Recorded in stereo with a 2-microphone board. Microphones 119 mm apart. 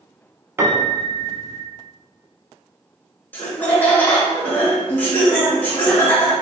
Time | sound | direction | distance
0.6 | a piano | 25° right (ahead or behind) | 0.6 m
3.3 | laughter | 15° left (ahead or behind) | 0.9 m